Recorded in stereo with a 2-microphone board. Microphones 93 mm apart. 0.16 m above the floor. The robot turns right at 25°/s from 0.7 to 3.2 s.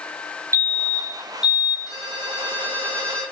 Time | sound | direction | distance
0.5 | a fire alarm | 30° right (ahead or behind) | 4 m
1.9 | a ringtone | 135° left | 4.5 m